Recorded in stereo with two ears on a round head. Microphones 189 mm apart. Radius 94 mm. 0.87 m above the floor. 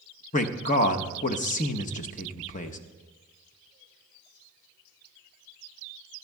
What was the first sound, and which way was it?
A man speaking, 35° left (ahead or behind).